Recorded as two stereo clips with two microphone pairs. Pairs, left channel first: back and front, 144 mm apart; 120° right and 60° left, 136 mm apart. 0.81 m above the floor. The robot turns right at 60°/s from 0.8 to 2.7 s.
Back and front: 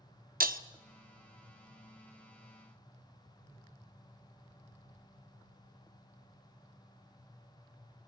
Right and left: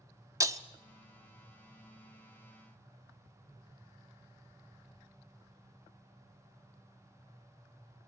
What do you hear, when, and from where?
0.4 s breaking glass: 5° right, 0.8 m